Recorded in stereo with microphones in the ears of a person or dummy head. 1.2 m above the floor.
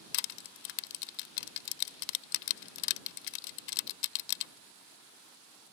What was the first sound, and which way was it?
Crushing, 60° left (ahead or behind).